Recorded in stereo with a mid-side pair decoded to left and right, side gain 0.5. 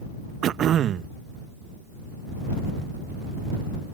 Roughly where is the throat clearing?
Ahead right.